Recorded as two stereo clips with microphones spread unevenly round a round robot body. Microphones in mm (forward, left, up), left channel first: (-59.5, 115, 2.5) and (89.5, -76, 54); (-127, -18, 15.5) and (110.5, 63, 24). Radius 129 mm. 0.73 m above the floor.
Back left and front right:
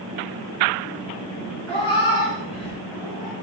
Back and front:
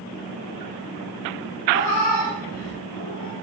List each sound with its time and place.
1.7 s a cat meowing: 160° right, 4 m; by 3.3 s 140° right, 3.5 m